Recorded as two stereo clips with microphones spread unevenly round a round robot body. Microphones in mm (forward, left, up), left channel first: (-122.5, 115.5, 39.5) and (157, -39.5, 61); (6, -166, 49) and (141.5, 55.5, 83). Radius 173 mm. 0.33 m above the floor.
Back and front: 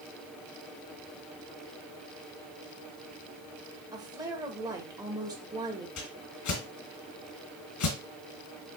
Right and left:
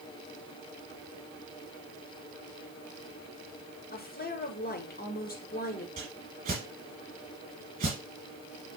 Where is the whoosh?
120° left, 2.5 m.